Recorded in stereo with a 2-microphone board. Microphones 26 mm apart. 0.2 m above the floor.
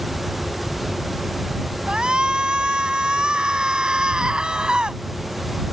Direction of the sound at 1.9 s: 35° right (ahead or behind).